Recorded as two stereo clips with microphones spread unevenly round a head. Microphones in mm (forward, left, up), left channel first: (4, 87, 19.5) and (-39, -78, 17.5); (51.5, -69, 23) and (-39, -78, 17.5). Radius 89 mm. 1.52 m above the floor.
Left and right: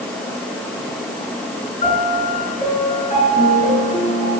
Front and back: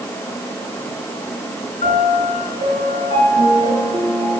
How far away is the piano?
About 6 m.